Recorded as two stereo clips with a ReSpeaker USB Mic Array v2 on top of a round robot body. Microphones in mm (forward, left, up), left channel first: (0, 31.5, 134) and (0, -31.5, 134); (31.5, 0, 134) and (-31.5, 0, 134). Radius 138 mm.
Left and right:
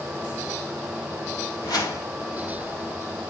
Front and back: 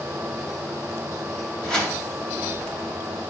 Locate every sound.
1.6 s a whoosh: 75° left, 3 m